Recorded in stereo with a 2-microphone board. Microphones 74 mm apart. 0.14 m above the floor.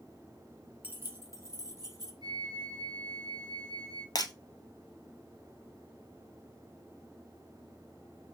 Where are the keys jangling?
25° right (ahead or behind), 0.8 m; by 2.1 s 60° right (ahead or behind), 1.7 m.